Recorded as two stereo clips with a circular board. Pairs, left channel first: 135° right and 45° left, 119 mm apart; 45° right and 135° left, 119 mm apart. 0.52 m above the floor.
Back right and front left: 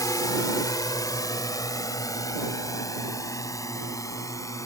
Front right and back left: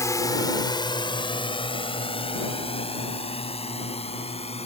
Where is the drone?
95° right; by 4.7 s 75° right.